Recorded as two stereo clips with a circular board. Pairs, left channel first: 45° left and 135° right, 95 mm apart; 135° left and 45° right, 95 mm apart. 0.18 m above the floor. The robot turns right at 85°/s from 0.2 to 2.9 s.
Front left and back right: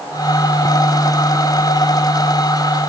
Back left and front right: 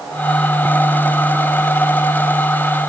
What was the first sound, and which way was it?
Only background noise.